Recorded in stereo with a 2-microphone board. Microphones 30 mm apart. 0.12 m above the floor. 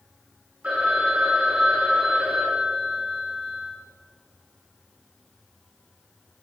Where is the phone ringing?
60° right (ahead or behind), 6 m.